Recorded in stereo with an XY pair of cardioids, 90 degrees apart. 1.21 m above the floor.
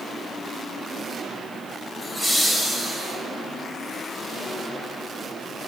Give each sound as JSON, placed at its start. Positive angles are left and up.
{"t": 2.0, "sound": "laughter", "azimuth_deg": 20, "distance_m": 6.0}